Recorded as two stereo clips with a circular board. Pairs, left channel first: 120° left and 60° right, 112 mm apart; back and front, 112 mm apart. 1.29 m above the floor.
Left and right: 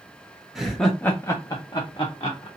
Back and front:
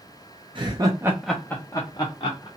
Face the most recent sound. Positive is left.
turn(degrees=160)